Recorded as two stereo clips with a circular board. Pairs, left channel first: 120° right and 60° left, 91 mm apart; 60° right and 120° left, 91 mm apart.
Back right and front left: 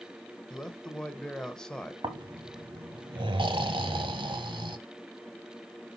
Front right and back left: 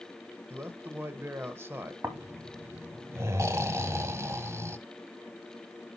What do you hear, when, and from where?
0.5 s a man speaking: 160° left, 1.0 m
2.0 s snoring: 65° left, 0.9 m